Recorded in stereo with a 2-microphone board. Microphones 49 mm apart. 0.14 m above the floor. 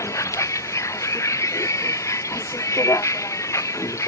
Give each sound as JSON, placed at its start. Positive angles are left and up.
{"t": 0.0, "sound": "a vehicle", "side_deg": 80}